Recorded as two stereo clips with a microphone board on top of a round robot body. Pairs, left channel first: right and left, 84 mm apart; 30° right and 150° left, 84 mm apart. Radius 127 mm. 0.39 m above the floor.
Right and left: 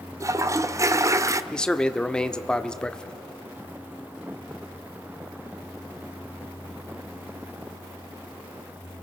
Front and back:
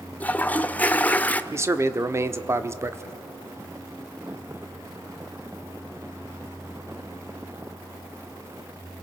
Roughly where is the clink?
No clink in this recording.